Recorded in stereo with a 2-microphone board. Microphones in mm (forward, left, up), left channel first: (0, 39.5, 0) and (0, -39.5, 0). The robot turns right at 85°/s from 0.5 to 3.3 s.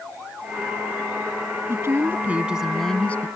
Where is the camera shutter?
I don't hear a camera shutter.